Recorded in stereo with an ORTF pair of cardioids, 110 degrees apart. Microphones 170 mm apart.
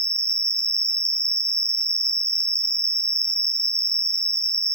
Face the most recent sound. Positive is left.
turn(degrees=-20)